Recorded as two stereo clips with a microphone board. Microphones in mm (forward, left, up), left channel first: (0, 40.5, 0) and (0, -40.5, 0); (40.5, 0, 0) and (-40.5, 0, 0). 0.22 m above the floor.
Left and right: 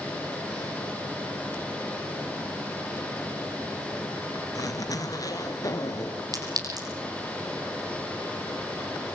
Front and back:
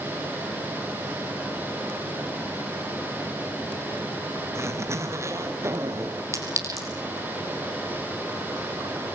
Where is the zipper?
125° left, 2.5 m.